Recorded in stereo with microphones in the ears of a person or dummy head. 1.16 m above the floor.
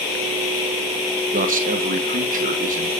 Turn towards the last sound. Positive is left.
turn(degrees=-40)  # may be behind; listen again after turning